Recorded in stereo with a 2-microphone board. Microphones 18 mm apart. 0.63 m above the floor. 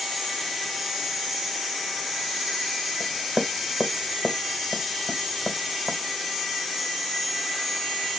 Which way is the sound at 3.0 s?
35° right (ahead or behind).